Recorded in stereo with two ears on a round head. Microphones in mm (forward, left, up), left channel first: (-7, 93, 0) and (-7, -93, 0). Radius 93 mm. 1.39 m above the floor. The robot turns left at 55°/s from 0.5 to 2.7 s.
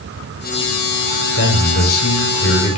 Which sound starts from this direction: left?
A man speaking, at 1.4 s.